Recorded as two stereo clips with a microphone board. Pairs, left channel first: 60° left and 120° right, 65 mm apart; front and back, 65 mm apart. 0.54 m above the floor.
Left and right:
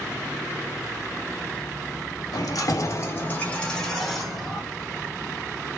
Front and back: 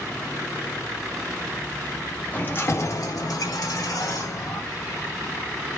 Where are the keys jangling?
60° left, 0.8 m; by 4.6 s 35° right, 1.3 m.